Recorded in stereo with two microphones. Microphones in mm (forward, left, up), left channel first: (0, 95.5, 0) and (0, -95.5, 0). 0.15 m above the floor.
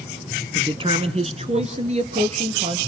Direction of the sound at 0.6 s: 25° right (ahead or behind).